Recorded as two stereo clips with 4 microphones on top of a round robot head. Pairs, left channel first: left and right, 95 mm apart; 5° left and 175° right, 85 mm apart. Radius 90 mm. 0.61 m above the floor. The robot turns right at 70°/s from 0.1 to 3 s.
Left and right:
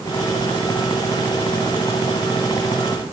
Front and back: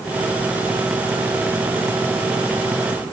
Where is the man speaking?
I don't hear a man speaking.